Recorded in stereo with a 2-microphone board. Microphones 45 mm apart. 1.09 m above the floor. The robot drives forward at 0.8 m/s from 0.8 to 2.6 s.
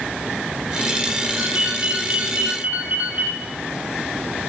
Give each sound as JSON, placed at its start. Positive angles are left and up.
{"t": 1.4, "sound": "a ringtone", "side_deg": -40, "distance_m": 7.0}